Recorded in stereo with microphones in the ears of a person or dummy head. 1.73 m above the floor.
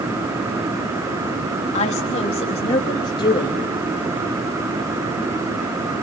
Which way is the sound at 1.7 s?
40° left (ahead or behind).